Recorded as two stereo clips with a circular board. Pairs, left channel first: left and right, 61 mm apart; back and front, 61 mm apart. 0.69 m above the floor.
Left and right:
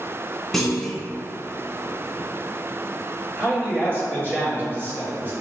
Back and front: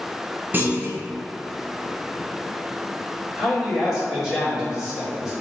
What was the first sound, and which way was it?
A clunk, 10° left.